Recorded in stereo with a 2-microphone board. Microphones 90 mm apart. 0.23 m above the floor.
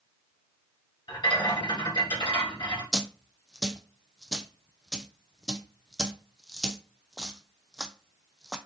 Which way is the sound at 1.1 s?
70° left (ahead or behind).